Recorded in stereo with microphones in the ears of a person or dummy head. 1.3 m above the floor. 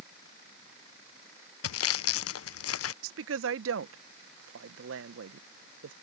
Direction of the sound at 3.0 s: 70° right (ahead or behind).